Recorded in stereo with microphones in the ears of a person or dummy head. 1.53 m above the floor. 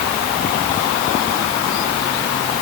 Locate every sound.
Only background noise.